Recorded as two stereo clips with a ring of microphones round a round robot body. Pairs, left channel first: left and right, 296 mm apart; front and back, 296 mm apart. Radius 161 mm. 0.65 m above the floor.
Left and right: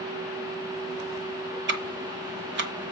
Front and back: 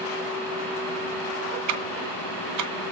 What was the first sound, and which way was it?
Ticking, 145° right.